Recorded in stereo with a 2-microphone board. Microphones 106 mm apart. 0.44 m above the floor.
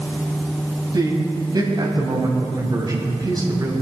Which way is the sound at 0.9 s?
40° right (ahead or behind).